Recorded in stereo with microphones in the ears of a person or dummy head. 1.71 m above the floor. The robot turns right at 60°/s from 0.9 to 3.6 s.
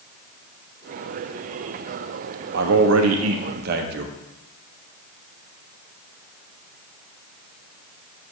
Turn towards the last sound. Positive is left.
turn(degrees=-55)